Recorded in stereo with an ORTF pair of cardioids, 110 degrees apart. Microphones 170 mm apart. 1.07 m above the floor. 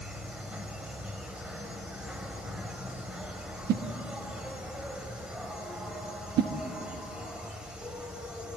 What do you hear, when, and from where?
0.0 s an insect: 5° right, 2 m
3.7 s a whoosh: 70° right, 1.3 m